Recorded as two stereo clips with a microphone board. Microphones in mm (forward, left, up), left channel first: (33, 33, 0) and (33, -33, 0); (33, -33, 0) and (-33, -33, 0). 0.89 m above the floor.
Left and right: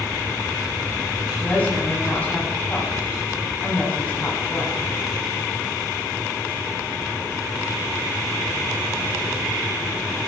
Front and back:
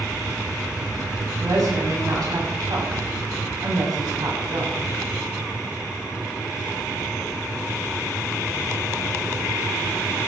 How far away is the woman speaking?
About 7 m.